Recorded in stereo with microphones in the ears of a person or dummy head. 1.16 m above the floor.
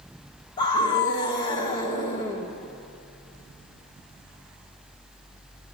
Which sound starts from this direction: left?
A scream, at 0.6 s.